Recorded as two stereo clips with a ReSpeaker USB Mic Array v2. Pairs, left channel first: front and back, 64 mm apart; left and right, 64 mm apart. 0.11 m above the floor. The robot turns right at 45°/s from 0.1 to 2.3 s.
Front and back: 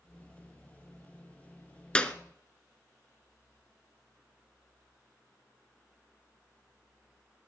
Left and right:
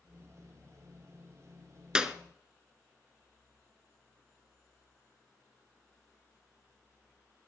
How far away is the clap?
About 0.9 m.